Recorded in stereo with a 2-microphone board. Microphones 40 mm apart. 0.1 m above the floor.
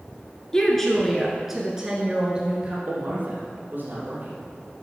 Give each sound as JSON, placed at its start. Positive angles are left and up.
{"t": 0.5, "sound": "a woman speaking", "side_deg": 15, "distance_m": 1.2}
{"t": 2.9, "sound": "a man speaking", "side_deg": -45, "distance_m": 3.0}